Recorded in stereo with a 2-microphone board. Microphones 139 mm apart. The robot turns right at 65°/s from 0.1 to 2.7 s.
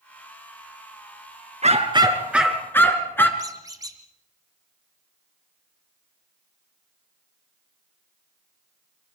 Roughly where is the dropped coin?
I don't hear a dropped coin.